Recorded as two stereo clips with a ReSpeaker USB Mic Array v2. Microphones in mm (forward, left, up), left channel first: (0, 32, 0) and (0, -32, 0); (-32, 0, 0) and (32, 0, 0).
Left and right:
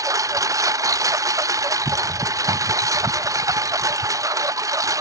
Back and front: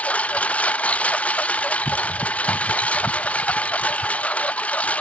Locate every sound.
0.0 s a lawn mower: 110° right